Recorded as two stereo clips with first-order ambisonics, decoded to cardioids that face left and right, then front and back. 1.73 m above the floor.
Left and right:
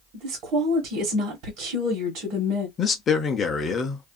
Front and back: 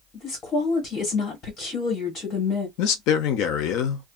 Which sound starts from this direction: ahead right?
A woman speaking, at 0.1 s.